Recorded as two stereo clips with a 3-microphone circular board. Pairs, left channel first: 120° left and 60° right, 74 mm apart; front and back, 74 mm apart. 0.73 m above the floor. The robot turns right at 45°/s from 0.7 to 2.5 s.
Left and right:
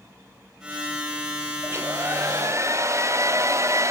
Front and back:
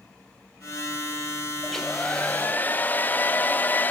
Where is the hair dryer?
90° right, 0.5 m; by 3.9 s 50° right, 0.5 m.